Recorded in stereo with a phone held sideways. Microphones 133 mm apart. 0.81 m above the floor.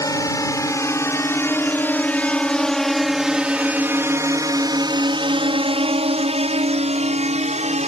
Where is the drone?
25° left (ahead or behind); by 7.9 s 50° right (ahead or behind).